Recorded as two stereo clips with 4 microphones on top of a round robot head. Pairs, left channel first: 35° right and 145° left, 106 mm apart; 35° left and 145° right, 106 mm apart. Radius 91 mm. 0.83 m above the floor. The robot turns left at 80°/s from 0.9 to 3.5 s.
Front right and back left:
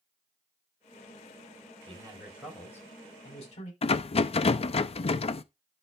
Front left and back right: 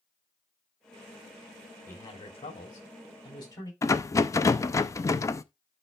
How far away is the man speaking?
About 3.5 m.